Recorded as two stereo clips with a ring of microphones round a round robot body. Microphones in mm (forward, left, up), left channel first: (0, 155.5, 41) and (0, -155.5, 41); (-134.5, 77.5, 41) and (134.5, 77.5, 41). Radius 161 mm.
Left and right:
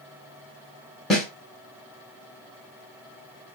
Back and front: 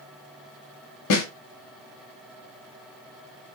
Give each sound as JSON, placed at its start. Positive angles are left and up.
{"t": 1.1, "sound": "a snare drum", "azimuth_deg": 180, "distance_m": 0.8}